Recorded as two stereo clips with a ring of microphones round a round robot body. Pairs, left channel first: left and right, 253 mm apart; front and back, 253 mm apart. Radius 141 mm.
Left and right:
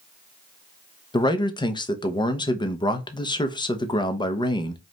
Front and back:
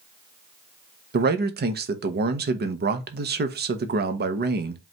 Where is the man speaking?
155° left, 0.8 m.